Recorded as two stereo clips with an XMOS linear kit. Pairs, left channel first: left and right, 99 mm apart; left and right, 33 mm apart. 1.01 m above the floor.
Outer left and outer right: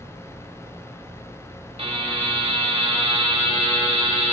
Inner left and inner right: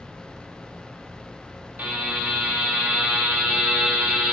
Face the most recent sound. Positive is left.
turn(degrees=-80)